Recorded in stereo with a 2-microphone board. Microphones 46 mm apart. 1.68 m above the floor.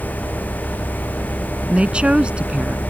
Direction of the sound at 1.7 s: 25° right (ahead or behind).